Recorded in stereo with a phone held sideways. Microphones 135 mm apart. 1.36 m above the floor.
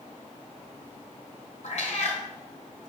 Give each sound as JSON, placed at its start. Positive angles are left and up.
{"t": 1.6, "sound": "a cat meowing", "side_deg": 60, "distance_m": 2.5}